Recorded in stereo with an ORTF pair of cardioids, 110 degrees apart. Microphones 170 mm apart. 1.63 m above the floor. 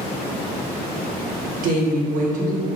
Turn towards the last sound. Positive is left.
turn(degrees=-50)